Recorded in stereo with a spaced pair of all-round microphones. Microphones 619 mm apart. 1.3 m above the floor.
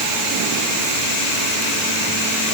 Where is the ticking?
I don't hear ticking.